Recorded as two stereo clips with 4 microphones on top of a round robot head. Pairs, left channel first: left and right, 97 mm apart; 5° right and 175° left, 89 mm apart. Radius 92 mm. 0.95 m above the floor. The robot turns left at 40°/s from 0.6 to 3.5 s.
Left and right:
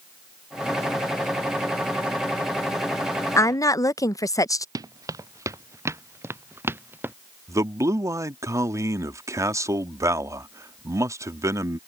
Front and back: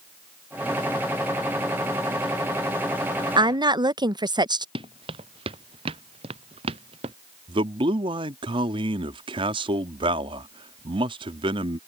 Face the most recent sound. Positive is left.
turn(degrees=-150)